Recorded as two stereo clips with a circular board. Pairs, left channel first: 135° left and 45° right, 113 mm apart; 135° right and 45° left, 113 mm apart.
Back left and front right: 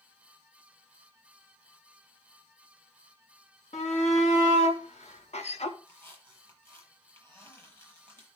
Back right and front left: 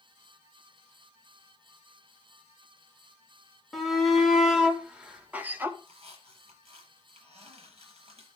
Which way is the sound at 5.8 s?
70° left.